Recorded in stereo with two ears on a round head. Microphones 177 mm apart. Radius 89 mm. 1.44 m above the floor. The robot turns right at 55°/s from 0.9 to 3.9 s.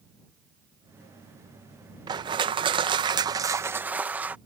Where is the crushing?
20° right (ahead or behind); by 4.4 s 10° right (ahead or behind).